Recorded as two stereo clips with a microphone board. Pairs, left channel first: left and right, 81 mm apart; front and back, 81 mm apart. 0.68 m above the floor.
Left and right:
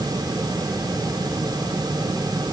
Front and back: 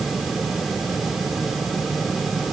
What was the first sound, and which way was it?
Only background noise.